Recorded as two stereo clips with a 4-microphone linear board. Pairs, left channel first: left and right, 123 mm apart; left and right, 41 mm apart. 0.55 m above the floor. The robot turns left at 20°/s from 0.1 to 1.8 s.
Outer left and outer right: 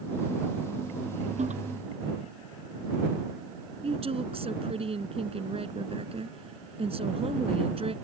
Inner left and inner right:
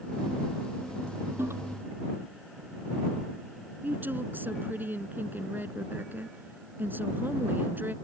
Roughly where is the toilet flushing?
Right.